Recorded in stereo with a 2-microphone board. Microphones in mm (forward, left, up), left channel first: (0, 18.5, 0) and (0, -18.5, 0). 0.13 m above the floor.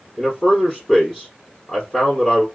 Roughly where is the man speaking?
Centre.